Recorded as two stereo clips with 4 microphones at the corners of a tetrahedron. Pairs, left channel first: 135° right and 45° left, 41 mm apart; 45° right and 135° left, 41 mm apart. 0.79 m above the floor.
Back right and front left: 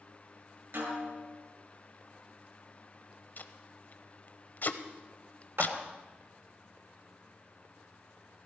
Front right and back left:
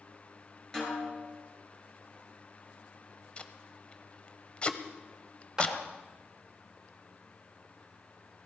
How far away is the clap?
About 2.5 m.